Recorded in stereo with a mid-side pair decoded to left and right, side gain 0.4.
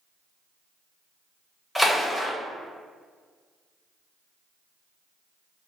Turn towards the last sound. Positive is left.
turn(degrees=0)